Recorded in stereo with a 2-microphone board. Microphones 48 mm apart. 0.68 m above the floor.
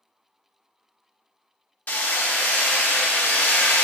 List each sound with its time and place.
1.9 s hammering: 40° left (ahead or behind), 0.8 m